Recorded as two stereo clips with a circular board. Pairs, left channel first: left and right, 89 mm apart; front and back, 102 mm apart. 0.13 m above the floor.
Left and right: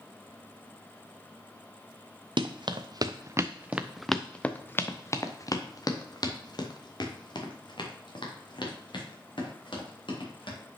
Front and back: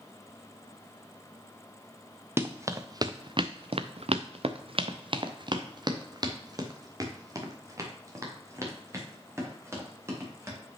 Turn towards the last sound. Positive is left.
turn(degrees=115)